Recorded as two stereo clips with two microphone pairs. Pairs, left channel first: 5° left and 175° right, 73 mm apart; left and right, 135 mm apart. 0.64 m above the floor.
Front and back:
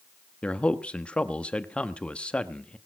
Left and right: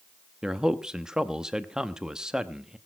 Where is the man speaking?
15° right, 0.8 m.